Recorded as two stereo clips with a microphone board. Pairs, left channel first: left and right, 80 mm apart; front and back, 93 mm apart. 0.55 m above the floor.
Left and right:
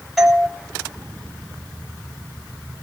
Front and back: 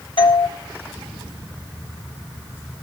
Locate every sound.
0.2 s a doorbell: 5° left, 3 m